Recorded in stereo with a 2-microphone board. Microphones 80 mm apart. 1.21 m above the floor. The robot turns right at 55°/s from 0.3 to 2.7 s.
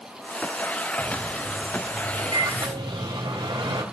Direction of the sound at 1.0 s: 165° left.